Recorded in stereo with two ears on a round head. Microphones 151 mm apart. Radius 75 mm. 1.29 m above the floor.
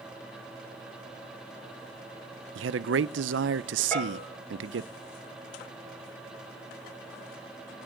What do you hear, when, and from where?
2.5 s a man speaking: 80° right, 0.6 m
3.9 s a bell: 10° left (ahead or behind), 6.5 m